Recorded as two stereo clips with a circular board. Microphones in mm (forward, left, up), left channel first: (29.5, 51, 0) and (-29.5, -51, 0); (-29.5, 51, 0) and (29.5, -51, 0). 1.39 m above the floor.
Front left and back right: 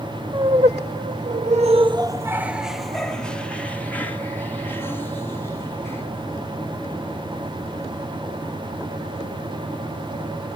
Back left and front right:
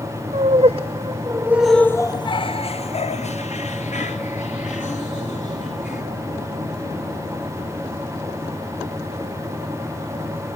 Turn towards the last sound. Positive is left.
turn(degrees=130)